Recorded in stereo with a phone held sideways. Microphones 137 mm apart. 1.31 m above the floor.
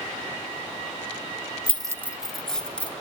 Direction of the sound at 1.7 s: 45° right (ahead or behind).